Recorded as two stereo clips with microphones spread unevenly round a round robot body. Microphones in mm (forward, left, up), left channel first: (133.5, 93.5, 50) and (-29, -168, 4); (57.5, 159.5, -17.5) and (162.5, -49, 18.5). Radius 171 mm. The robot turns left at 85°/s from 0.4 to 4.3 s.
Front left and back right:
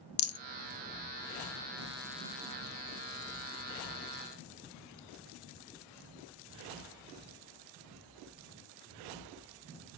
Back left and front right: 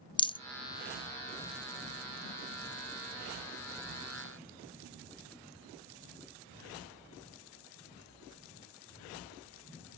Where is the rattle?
40° left, 0.5 m.